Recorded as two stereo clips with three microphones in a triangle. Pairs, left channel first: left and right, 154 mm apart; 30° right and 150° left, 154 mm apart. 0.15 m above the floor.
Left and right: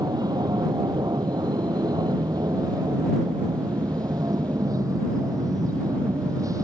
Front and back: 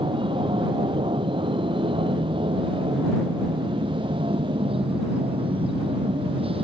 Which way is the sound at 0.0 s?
155° right.